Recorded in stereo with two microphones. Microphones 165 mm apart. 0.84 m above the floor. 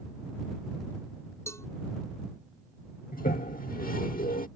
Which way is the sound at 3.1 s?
60° left (ahead or behind).